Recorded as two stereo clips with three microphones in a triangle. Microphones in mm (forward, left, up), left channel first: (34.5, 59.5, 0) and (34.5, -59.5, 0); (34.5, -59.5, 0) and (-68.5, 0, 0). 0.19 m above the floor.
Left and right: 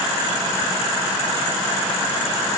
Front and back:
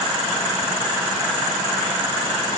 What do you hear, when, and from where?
Only background noise.